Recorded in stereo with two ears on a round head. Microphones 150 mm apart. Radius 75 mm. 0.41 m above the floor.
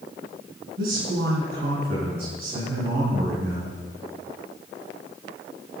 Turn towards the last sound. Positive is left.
turn(degrees=-65)  # may be behind; listen again after turning